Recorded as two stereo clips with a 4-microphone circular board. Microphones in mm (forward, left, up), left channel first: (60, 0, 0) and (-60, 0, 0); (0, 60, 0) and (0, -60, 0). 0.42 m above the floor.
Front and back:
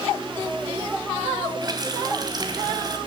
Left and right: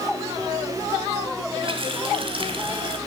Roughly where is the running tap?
Behind right.